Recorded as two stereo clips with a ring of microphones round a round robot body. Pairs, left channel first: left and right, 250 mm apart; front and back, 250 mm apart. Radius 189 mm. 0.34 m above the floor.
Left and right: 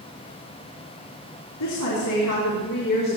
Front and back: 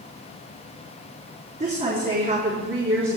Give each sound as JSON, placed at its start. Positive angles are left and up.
{"t": 1.6, "sound": "a woman speaking", "azimuth_deg": 120, "distance_m": 5.0}